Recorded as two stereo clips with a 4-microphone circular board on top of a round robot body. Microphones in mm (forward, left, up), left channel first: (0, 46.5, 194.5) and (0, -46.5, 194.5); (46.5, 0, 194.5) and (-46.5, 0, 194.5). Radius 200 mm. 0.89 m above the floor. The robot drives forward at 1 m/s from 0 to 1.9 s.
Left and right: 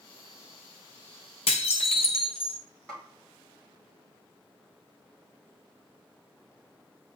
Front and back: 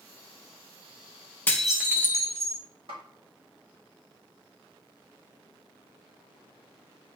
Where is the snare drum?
175° left, 3 m.